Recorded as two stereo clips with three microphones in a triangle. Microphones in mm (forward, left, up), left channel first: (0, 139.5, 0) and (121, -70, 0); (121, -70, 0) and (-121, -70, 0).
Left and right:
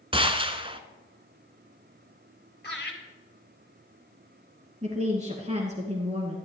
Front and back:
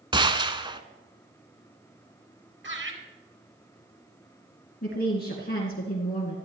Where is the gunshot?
115° right, 0.9 m.